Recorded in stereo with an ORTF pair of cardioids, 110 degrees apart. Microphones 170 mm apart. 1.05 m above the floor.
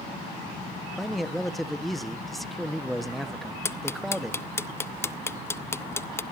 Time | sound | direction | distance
1.0 | a man speaking | straight ahead | 1.4 m
3.6 | ticking | 15° left | 0.6 m